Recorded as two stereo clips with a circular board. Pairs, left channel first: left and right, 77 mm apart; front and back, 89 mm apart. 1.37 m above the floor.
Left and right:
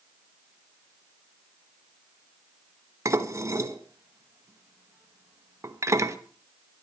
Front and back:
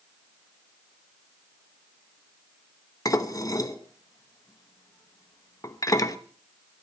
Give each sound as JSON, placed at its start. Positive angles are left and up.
{"t": 3.0, "sound": "dishes clattering", "azimuth_deg": -45, "distance_m": 1.0}